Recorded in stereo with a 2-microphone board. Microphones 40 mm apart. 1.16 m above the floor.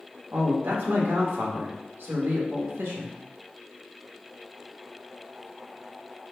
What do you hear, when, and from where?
0.3 s a man speaking: 80° right, 1.3 m